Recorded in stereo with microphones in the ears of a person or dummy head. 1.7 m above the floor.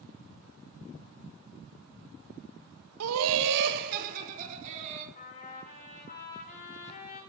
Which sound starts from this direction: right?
Laughter, at 3.0 s.